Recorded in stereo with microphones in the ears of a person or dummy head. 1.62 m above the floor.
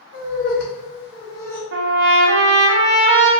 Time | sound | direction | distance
0.1 | laughter | 60° left (ahead or behind) | 1.0 m
1.7 | a trumpet | 65° right (ahead or behind) | 0.5 m